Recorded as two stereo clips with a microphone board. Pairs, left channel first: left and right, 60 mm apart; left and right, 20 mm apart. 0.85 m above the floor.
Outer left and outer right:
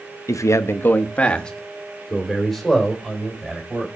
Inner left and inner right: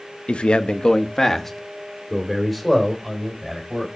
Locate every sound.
0.3 s a man speaking: 60° left (ahead or behind), 0.6 m; by 3.9 s 5° right (ahead or behind), 3.5 m